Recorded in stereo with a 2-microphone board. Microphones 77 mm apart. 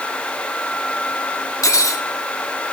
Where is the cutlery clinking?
45° left (ahead or behind), 0.9 m.